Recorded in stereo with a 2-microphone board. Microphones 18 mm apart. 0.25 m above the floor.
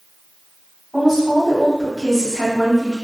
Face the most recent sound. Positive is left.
turn(degrees=-15)  # may be behind; listen again after turning